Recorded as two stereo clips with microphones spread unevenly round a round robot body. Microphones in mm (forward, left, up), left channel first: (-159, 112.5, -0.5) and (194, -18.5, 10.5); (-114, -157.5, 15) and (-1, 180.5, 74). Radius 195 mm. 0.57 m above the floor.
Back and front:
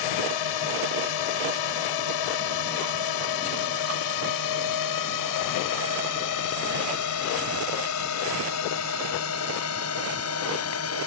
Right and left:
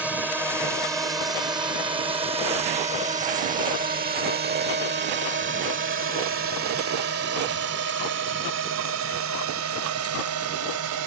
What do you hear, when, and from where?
0.0 s a drone: 160° left; by 11.1 s 110° left